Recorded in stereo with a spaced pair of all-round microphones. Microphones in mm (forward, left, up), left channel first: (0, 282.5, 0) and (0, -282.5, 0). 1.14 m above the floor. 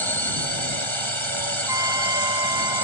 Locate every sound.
0.0 s a drone: 55° right (ahead or behind)
1.7 s a trumpet: 30° left (ahead or behind)